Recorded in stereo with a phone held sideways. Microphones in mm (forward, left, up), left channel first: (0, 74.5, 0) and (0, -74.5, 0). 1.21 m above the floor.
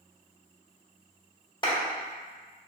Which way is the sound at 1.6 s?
25° left (ahead or behind).